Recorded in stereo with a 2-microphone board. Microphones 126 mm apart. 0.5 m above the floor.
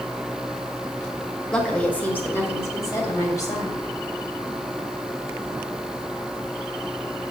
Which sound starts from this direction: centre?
A woman speaking, at 1.5 s.